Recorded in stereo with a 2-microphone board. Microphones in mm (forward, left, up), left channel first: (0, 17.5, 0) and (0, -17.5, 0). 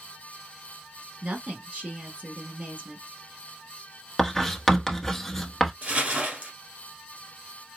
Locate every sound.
1.2 s a woman speaking: 45° right (ahead or behind), 1.6 m
4.2 s writing: 5° left (ahead or behind), 0.8 m
5.8 s crumpling: 45° right (ahead or behind), 1.4 m